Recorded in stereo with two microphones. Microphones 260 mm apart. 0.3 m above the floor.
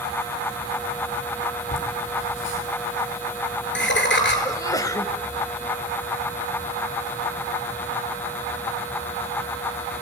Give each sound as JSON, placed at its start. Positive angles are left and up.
{"t": 1.7, "sound": "laughter", "side_deg": 55, "distance_m": 7.0}
{"t": 4.5, "sound": "a sneeze", "side_deg": 15, "distance_m": 1.2}